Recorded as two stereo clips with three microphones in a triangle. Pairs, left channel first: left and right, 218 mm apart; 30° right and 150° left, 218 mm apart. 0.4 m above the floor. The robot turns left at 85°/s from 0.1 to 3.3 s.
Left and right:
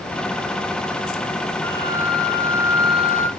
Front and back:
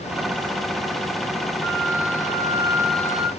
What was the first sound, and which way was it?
A flute, 175° left.